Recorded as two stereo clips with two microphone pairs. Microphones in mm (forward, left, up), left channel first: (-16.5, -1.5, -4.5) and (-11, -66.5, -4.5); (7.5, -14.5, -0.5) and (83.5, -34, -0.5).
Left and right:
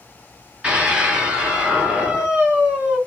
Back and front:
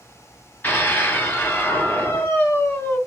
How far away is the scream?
About 1.4 m.